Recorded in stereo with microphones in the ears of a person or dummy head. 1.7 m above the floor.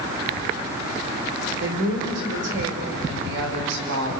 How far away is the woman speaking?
About 5.5 m.